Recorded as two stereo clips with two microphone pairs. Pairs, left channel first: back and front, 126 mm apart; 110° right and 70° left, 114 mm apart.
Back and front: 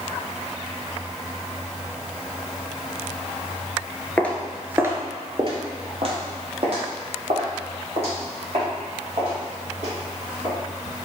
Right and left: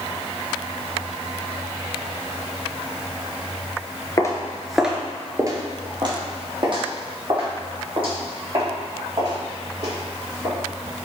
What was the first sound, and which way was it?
Footsteps, 125° right.